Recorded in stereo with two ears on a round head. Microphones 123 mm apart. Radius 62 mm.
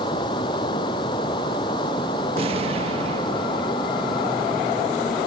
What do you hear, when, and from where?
0.0 s running water: 30° left (ahead or behind)
2.4 s an explosion: 45° right (ahead or behind)